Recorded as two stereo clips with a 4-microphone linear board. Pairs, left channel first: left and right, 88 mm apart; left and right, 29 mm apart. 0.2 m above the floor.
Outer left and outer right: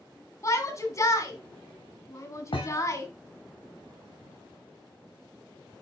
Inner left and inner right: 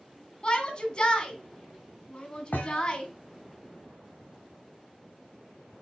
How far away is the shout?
About 1.8 m.